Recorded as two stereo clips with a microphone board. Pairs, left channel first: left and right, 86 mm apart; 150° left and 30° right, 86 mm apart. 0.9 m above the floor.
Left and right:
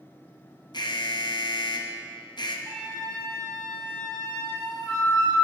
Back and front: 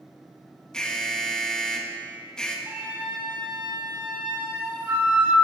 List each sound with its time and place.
0.7 s an alarm: 70° left, 0.9 m
2.7 s a flute: 35° left, 3 m